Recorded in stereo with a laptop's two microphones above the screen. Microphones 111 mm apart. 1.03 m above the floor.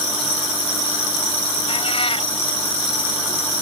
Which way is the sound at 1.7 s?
55° left (ahead or behind).